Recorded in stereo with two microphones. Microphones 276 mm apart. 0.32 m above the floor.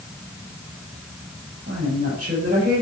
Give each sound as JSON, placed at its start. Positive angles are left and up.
{"t": 1.7, "sound": "a woman speaking", "side_deg": -40, "distance_m": 6.0}